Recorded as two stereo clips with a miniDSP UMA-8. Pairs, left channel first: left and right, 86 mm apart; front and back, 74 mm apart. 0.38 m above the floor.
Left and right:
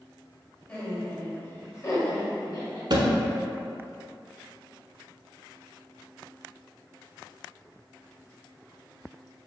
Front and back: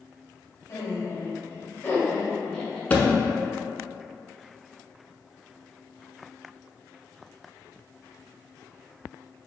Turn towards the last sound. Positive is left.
turn(degrees=-70)